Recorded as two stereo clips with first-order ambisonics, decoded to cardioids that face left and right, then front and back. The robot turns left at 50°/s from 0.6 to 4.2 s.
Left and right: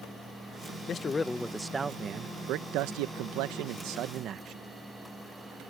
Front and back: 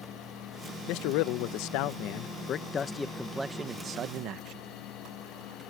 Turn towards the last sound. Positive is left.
turn(degrees=-140)